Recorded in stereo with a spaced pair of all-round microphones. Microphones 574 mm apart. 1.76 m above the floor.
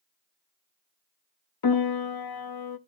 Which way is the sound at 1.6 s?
40° left (ahead or behind).